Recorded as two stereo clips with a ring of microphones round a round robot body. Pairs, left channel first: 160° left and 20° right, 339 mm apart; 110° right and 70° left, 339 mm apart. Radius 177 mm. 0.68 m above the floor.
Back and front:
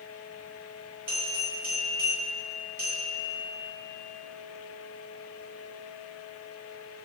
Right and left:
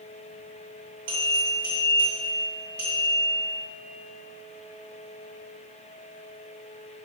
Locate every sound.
1.1 s a bell: 20° left, 1.9 m